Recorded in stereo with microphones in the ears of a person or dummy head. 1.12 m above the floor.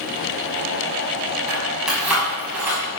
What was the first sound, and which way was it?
Keys jangling, centre (ahead or behind).